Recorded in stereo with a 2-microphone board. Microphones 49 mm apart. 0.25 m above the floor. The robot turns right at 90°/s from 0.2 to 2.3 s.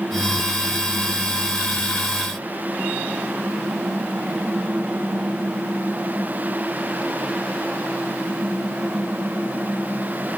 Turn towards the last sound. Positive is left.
No sound to turn to.